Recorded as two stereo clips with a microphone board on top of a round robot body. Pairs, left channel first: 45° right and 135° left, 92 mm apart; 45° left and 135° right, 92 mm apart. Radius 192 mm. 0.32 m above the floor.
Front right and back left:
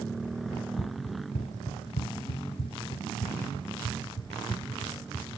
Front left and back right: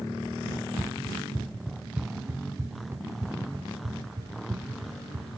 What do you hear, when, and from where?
0.5 s running footsteps: 25° right, 2 m; by 5.3 s 90° right, 4 m